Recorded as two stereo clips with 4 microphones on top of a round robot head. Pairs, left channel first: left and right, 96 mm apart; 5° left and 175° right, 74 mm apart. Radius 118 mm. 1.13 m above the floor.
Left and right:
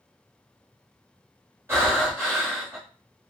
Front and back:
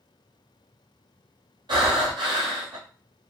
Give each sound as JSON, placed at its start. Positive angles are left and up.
{"t": 1.7, "sound": "breathing", "azimuth_deg": -155, "distance_m": 1.0}